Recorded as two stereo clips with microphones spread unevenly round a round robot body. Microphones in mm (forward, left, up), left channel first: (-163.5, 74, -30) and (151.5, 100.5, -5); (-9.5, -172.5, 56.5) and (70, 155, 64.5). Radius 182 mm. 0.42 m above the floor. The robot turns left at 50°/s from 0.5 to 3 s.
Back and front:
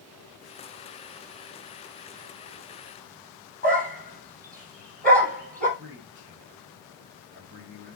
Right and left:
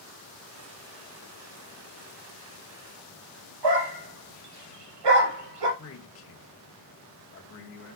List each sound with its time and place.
3.6 s a dog barking: 70° left, 5.5 m
5.8 s a man speaking: 60° right, 2.5 m